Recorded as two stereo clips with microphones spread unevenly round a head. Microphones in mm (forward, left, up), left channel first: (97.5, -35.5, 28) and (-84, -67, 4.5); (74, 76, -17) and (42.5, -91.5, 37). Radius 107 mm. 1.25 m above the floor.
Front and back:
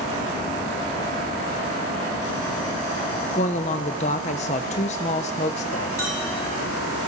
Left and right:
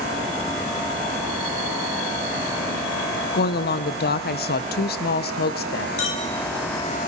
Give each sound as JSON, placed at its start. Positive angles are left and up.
{"t": 3.3, "sound": "a woman speaking", "azimuth_deg": 70, "distance_m": 0.7}
{"t": 6.0, "sound": "a clink", "azimuth_deg": 90, "distance_m": 1.8}